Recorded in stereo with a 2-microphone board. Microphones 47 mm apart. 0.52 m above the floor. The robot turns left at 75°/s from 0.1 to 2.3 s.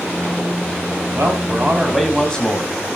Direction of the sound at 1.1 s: 110° right.